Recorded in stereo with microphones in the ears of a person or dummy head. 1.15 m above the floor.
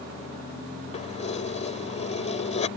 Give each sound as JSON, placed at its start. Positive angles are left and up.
{"t": 0.9, "sound": "keys jangling", "side_deg": 40}